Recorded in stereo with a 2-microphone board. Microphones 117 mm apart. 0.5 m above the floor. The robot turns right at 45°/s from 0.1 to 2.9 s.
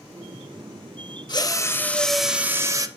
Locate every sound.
1.3 s a drill: 140° left, 0.6 m; by 2.9 s 150° right, 0.6 m